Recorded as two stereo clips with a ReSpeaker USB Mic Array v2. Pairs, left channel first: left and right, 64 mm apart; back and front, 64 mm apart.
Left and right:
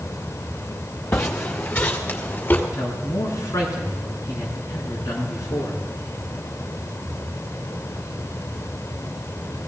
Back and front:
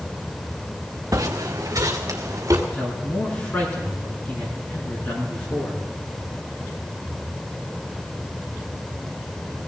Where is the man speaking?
120° left, 6.5 m.